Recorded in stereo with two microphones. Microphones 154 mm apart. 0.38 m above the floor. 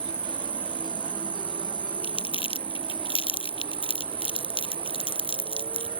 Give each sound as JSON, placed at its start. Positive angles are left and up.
{"t": 0.0, "sound": "an insect", "side_deg": -35}
{"t": 2.0, "sound": "crumpling", "side_deg": 35}